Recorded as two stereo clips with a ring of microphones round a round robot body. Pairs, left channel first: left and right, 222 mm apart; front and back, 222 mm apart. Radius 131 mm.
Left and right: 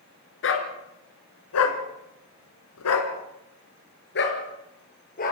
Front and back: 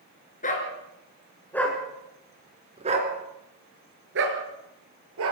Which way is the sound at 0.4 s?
60° left.